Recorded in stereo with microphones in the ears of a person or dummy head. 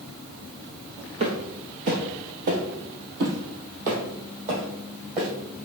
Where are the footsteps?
35° right (ahead or behind), 2 m; by 5.3 s 40° right (ahead or behind), 4 m.